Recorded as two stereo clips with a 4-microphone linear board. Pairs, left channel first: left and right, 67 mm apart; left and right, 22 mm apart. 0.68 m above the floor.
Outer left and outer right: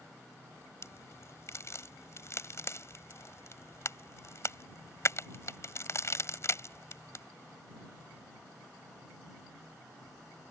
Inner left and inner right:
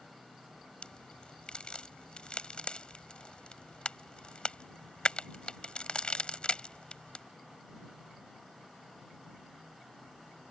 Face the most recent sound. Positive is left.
turn(degrees=45)  # may be behind; listen again after turning